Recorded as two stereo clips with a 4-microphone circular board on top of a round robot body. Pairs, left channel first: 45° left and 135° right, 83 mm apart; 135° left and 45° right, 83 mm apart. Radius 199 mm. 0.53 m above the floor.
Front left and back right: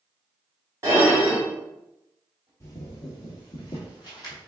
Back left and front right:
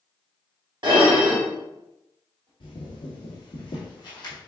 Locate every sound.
0.8 s dishes clattering: 80° right, 2.0 m
2.6 s footsteps: 105° left, 0.9 m; by 4.4 s 85° left, 1.9 m